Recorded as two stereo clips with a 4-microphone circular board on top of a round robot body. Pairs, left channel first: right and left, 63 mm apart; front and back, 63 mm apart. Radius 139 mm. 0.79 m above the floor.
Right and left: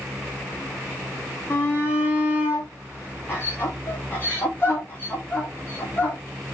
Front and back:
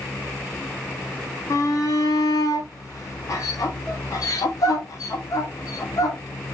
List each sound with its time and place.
1.5 s a shout: 35° right, 2.5 m